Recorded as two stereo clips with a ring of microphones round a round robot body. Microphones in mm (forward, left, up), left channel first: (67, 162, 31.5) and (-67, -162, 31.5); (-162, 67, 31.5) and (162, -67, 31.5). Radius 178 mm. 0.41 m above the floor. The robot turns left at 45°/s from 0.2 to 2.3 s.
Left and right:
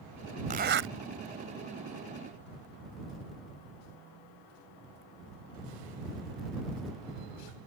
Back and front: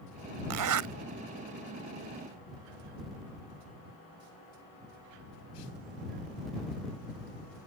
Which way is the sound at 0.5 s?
45° right.